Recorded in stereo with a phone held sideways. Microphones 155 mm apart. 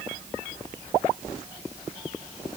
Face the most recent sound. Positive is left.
No sound to turn to.